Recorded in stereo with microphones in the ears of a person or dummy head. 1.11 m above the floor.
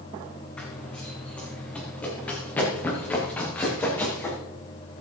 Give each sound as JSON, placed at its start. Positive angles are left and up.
{"t": 0.6, "sound": "running footsteps", "side_deg": 5, "distance_m": 3.5}